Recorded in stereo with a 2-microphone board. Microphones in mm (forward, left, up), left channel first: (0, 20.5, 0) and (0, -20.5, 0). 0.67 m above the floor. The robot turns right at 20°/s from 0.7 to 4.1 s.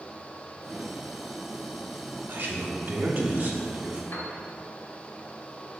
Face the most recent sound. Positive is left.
turn(degrees=60)  # may be behind; listen again after turning